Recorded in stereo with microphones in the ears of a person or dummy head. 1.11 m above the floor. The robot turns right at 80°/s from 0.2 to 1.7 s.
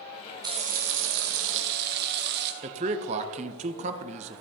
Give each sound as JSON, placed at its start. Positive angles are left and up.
{"t": 0.4, "sound": "frying", "azimuth_deg": -160, "distance_m": 0.9}
{"t": 2.6, "sound": "a man speaking", "side_deg": -35, "distance_m": 0.7}